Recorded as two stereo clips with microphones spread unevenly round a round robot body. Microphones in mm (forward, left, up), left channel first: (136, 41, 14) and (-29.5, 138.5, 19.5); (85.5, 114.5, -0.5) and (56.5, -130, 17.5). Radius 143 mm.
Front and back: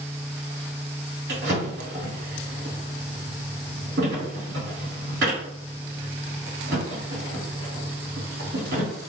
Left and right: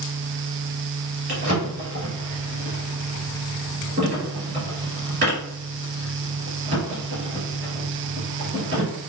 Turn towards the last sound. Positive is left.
turn(degrees=-155)